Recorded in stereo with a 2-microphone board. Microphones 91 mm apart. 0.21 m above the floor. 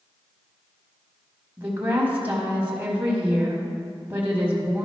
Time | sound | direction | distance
1.6 | a woman speaking | 20° right (ahead or behind) | 1.2 m